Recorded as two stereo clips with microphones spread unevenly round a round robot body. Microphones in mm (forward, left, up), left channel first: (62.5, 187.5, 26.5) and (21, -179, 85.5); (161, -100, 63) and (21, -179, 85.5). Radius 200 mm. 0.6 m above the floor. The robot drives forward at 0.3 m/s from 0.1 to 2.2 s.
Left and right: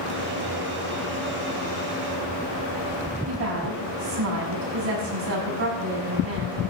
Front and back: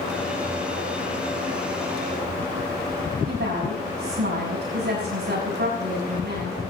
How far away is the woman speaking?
About 5.5 m.